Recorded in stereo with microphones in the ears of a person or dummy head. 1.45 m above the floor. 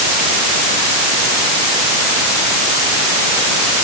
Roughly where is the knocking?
I don't hear knocking.